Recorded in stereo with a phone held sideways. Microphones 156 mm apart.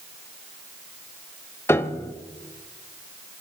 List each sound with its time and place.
1.7 s a piano: 15° left (ahead or behind), 0.6 m